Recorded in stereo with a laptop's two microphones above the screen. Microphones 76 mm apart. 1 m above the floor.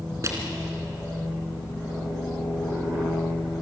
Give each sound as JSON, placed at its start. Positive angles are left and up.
{"t": 0.2, "sound": "crushing", "side_deg": -40, "distance_m": 3.0}